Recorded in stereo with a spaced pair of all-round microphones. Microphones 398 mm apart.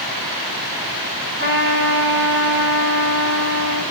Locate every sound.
1.4 s a trumpet: 30° right (ahead or behind), 6 m